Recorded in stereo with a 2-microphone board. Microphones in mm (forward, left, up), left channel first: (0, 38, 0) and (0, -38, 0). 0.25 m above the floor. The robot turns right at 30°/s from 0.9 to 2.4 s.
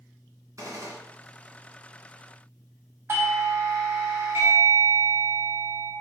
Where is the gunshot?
50° right (ahead or behind), 1.7 m; by 1.0 s 45° right (ahead or behind), 1.7 m.